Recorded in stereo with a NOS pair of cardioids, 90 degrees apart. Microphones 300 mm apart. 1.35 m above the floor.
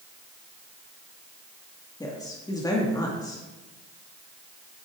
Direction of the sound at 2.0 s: 10° left.